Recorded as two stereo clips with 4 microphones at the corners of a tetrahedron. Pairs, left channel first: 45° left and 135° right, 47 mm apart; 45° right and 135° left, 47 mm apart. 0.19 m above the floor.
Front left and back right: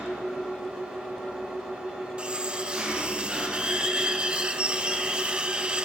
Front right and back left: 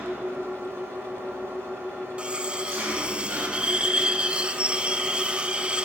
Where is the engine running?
165° left, 5 m.